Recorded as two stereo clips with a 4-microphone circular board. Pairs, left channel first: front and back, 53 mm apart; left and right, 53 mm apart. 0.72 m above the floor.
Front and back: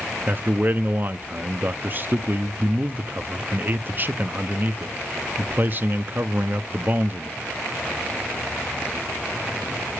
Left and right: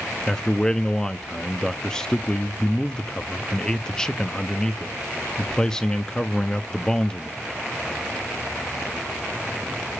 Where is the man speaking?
160° left, 0.6 m.